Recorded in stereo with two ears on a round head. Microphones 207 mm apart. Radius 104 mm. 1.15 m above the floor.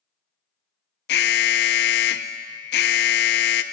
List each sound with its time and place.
1.1 s an alarm: 45° left (ahead or behind), 0.6 m